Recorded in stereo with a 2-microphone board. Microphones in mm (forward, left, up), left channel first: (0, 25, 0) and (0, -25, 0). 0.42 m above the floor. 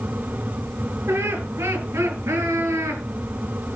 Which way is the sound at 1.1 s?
55° right (ahead or behind).